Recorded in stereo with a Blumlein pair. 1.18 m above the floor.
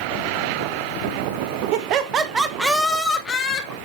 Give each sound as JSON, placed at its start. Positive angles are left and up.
{"t": 1.7, "sound": "laughter", "azimuth_deg": -45, "distance_m": 1.3}